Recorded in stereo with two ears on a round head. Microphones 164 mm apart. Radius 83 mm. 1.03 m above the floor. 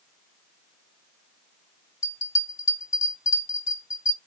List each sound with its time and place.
2.0 s a bell: 20° left (ahead or behind), 3 m